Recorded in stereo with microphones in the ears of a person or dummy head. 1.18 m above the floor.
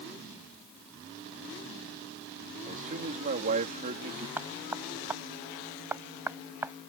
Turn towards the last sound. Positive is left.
turn(degrees=-10)  # may be behind; listen again after turning